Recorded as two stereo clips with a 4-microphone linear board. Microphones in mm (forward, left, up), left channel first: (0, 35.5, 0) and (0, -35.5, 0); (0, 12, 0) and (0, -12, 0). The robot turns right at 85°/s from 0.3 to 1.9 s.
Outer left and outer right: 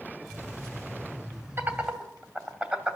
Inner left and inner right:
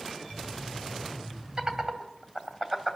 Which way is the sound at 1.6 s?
35° right (ahead or behind).